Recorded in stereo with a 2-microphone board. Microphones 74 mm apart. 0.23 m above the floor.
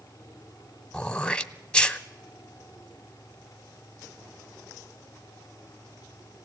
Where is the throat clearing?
10° left (ahead or behind), 0.7 m.